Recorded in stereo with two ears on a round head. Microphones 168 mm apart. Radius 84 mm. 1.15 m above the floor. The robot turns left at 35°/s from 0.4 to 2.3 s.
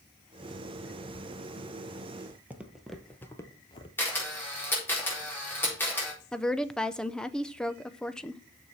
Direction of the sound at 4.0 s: 10° left (ahead or behind).